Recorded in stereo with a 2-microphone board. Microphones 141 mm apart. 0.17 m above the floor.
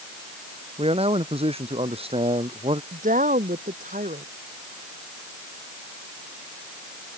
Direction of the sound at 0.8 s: 45° right (ahead or behind).